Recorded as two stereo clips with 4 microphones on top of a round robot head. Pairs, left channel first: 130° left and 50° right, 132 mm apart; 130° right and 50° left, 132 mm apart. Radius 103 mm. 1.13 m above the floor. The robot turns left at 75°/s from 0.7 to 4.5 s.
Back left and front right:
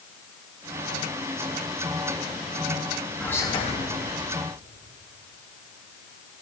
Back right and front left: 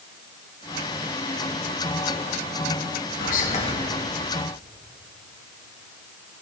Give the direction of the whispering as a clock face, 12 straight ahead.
5 o'clock.